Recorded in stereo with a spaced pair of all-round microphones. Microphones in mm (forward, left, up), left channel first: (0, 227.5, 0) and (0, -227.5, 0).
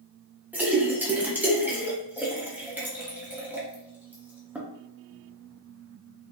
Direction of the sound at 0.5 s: 5° right (ahead or behind).